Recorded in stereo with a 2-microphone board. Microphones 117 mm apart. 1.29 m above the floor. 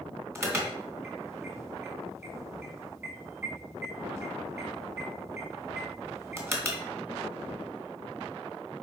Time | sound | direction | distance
0.3 | an alarm | 20° right (ahead or behind) | 2.5 m